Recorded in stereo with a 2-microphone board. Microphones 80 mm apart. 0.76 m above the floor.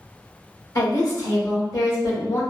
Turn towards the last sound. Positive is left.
turn(degrees=50)  # may be behind; listen again after turning